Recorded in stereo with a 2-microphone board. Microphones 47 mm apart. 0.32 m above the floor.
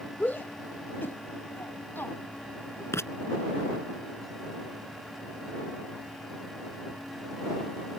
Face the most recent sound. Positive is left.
turn(degrees=80)